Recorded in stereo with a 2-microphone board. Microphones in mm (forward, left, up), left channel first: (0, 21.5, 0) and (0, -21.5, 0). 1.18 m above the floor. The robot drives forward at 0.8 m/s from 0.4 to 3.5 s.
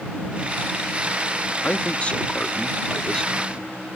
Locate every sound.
1.6 s a man speaking: 35° left (ahead or behind); by 3.7 s 20° left (ahead or behind)